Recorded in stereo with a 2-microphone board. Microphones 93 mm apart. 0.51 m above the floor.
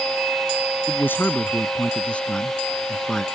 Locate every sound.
0.9 s a man speaking: 25° left (ahead or behind); by 3.2 s 5° left (ahead or behind)